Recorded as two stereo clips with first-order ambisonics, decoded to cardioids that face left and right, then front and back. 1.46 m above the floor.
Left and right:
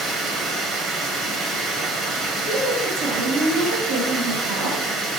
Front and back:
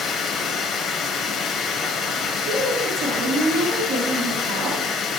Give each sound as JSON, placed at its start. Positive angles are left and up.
{"t": 0.0, "sound": "running water", "azimuth_deg": -45, "distance_m": 1.5}
{"t": 2.5, "sound": "a woman speaking", "azimuth_deg": -140, "distance_m": 3.0}